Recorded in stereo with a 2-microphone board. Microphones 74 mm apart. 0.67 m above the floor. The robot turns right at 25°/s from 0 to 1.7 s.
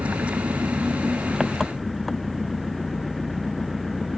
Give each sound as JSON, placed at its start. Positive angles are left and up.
{"t": 0.0, "sound": "an engine running", "azimuth_deg": -45}